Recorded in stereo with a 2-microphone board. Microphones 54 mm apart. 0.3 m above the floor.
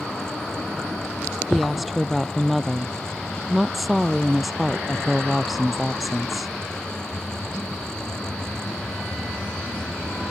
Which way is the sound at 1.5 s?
Centre (ahead or behind).